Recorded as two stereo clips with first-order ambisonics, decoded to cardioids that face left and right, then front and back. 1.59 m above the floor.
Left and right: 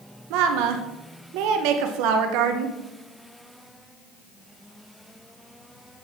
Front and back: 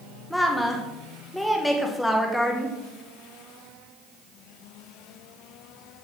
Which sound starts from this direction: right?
A woman speaking, at 0.3 s.